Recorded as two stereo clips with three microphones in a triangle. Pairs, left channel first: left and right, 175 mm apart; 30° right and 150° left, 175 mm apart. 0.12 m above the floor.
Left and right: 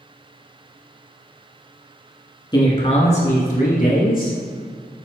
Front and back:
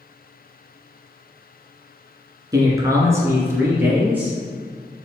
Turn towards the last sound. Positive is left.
turn(degrees=70)